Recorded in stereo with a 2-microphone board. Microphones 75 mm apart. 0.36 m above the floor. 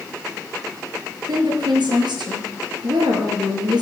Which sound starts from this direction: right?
A woman speaking, at 1.3 s.